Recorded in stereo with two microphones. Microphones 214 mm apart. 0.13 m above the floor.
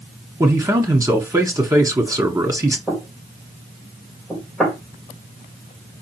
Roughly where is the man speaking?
Centre.